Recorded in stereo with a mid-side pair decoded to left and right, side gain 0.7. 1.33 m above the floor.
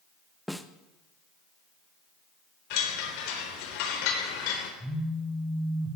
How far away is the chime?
About 3.5 m.